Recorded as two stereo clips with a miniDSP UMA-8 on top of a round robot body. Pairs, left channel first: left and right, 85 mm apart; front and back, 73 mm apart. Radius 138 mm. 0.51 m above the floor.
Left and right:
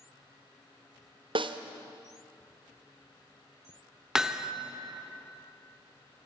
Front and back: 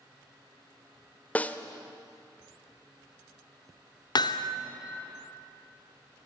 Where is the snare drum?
70° right, 1.0 m.